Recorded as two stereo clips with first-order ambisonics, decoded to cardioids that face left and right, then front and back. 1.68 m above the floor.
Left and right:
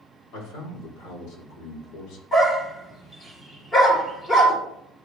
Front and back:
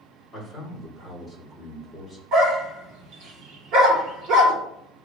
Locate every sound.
0.3 s a man speaking: 105° left, 4 m
2.3 s a dog barking: 155° left, 2.5 m